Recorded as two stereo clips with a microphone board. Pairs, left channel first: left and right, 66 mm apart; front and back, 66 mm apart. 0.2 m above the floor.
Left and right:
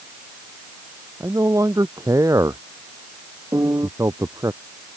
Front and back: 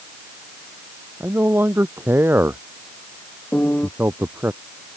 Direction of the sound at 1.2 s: 125° right.